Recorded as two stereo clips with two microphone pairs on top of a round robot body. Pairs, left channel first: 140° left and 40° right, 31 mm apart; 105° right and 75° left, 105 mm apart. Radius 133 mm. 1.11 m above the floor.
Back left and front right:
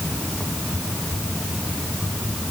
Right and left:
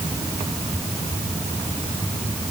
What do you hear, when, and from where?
Only background noise.